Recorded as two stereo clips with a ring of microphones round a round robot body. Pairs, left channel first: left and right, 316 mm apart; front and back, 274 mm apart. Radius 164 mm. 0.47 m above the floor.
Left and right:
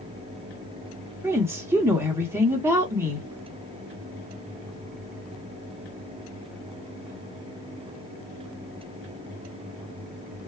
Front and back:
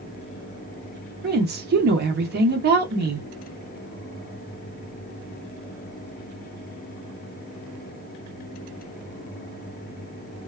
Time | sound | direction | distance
1.2 | a woman speaking | 165° right | 0.8 m